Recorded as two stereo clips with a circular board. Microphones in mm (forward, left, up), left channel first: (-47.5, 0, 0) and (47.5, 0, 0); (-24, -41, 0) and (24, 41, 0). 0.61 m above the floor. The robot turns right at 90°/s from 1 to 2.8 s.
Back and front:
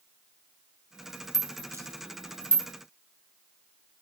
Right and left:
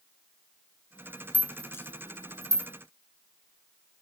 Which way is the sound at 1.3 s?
95° right.